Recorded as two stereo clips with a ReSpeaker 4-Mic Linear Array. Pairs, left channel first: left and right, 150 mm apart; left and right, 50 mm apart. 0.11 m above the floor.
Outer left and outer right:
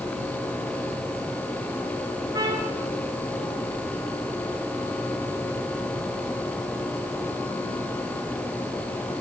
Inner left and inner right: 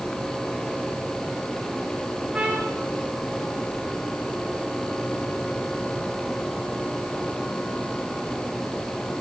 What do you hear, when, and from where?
2.3 s a trumpet: 25° right (ahead or behind), 4 m